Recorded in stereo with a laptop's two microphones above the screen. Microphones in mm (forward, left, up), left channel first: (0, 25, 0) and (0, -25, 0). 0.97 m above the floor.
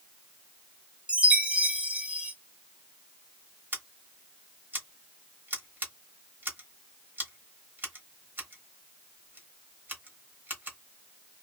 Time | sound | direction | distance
1.1 | a chime | 25° right (ahead or behind) | 0.6 m
3.7 | scissors | 40° right (ahead or behind) | 1.0 m